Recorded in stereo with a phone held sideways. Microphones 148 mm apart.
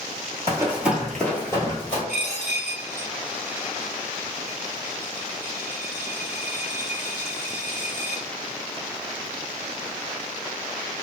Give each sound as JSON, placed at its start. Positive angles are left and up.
{"t": 0.5, "sound": "running footsteps", "side_deg": -20, "distance_m": 1.1}
{"t": 2.1, "sound": "a dropped coin", "side_deg": -10, "distance_m": 1.6}